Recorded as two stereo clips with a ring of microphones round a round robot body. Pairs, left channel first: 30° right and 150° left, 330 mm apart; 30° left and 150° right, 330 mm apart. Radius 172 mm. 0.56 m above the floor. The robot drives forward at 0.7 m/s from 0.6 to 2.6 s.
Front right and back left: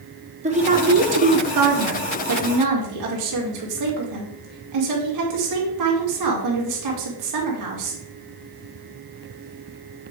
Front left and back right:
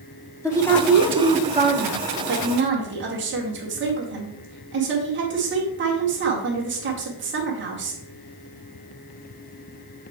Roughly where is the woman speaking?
Left.